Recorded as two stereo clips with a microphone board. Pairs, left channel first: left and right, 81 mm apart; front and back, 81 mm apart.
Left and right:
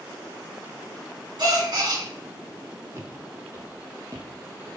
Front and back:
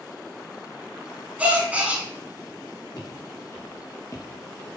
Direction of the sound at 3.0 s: 40° right.